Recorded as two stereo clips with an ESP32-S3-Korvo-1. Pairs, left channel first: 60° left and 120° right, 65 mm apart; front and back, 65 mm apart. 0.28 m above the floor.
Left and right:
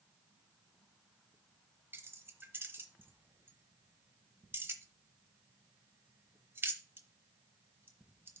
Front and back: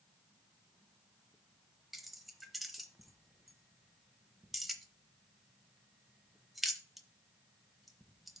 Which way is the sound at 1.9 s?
90° right.